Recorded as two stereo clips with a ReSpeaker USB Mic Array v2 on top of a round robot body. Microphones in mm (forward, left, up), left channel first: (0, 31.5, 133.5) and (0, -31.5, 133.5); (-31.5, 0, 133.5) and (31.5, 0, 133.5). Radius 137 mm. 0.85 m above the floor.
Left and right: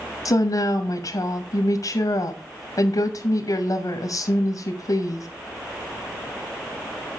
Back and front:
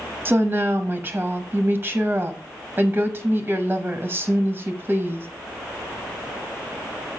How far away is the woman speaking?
About 0.9 m.